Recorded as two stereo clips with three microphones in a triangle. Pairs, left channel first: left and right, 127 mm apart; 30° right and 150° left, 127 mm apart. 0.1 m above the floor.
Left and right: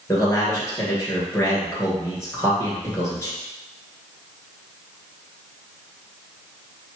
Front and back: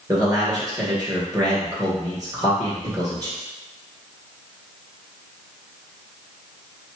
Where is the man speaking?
135° left, 1.9 m.